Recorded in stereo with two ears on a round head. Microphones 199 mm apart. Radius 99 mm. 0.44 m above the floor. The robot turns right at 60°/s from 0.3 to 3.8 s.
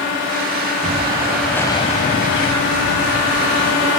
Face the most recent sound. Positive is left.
turn(degrees=145)